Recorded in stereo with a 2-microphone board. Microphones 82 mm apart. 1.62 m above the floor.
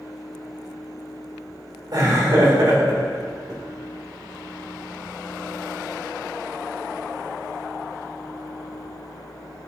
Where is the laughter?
55° right (ahead or behind), 2.5 m.